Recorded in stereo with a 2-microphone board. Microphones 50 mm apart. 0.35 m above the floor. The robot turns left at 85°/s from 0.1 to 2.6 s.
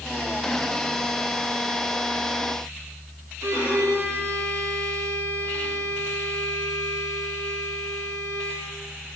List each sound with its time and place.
3.4 s a violin: 70° right (ahead or behind), 2.5 m